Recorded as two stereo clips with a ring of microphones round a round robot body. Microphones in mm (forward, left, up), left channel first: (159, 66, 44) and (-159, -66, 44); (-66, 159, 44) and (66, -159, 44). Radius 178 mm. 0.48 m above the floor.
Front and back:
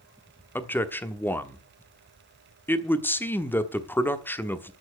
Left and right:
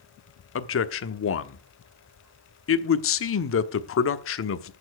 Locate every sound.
0.6 s a man speaking: 105° left, 1.0 m